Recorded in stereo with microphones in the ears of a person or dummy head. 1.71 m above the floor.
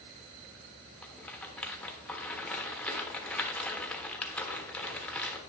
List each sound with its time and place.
1.0 s a rattle: 5° left (ahead or behind), 1.2 m